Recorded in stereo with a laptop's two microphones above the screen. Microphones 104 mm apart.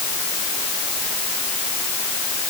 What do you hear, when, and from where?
Only background noise.